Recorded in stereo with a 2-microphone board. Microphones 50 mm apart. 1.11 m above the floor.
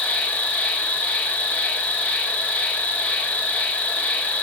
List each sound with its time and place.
0.0 s an insect: 25° left (ahead or behind), 0.8 m